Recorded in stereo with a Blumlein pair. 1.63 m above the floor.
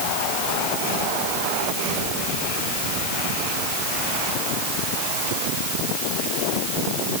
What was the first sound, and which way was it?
Only background noise.